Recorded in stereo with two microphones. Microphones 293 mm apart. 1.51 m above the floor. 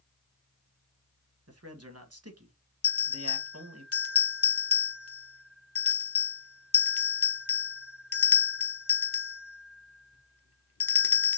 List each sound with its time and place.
1.5 s a man speaking: 55° right (ahead or behind), 1.4 m
2.8 s a bell: 50° left (ahead or behind), 0.6 m